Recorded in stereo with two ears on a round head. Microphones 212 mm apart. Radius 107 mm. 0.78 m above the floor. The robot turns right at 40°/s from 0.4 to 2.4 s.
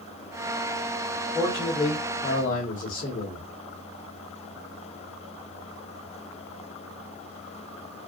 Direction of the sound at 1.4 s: 5° right.